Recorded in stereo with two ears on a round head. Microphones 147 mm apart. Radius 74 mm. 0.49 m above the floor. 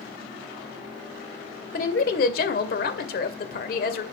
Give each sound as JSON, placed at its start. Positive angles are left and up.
{"t": 1.7, "sound": "a woman speaking", "side_deg": 55, "distance_m": 2.0}